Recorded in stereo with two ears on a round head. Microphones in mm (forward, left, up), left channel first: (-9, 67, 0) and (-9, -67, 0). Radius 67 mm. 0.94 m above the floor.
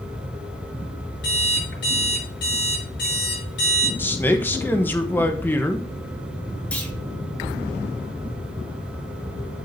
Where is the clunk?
10° left (ahead or behind), 2 m.